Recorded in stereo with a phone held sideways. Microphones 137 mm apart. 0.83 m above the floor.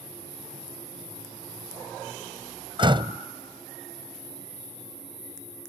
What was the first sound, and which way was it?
A door slam, 35° right (ahead or behind).